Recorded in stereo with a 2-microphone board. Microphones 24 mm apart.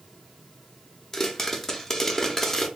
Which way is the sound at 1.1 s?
15° left (ahead or behind).